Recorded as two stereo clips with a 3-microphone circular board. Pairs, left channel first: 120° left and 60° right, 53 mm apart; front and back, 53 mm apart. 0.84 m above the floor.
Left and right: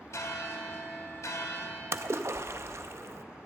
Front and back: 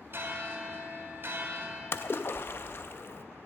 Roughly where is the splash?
Ahead right.